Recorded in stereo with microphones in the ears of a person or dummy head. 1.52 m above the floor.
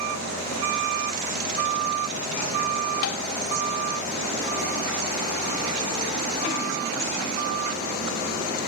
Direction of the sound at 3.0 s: 65° left (ahead or behind).